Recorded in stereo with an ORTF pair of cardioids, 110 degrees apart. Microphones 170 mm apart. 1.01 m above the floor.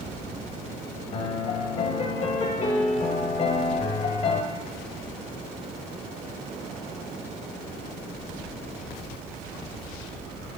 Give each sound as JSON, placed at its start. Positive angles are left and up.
{"t": 1.1, "sound": "a piano", "azimuth_deg": 35, "distance_m": 1.1}